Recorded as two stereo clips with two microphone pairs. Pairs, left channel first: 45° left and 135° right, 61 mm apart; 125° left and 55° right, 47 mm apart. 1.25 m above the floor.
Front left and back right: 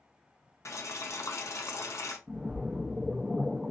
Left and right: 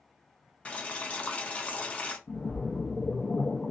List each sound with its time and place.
0.7 s boiling: 60° left, 0.7 m
2.3 s a splash: 135° left, 0.6 m